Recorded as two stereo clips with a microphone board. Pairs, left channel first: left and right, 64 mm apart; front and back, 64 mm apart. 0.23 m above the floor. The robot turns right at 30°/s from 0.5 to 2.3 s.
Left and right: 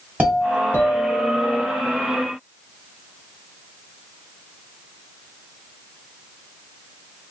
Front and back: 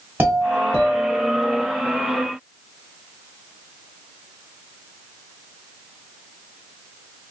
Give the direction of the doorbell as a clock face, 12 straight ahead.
5 o'clock.